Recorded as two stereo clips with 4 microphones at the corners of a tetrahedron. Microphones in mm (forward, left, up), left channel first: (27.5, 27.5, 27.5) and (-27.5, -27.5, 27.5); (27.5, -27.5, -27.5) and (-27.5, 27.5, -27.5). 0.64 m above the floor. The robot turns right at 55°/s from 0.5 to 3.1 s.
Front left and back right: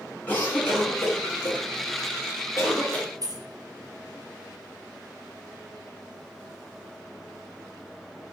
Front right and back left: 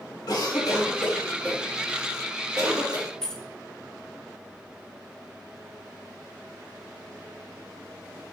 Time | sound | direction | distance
0.3 | a cough | 20° right | 1.6 m
3.2 | keys jangling | 125° right | 0.6 m